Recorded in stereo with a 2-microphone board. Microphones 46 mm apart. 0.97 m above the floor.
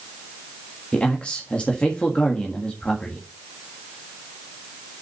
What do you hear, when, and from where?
0.9 s a man speaking: 30° left (ahead or behind), 1.6 m